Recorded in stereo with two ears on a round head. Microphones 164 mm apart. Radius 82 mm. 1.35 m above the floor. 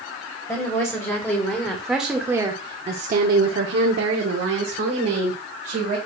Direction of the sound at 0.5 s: 15° left (ahead or behind).